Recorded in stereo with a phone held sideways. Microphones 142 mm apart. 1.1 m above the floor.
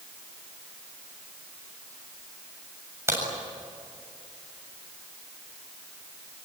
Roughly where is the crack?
Right.